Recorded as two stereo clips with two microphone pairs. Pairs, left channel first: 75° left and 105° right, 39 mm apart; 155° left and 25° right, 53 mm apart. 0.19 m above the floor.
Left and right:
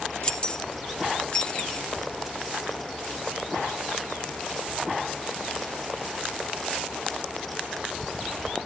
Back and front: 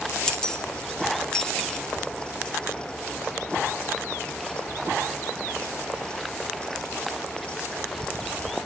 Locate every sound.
0.2 s keys jangling: 95° left, 0.7 m